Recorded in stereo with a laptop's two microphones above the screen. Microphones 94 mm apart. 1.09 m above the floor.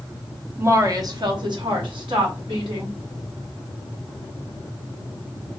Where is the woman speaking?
25° right (ahead or behind), 0.7 m; by 3.0 s 65° right (ahead or behind), 1.7 m.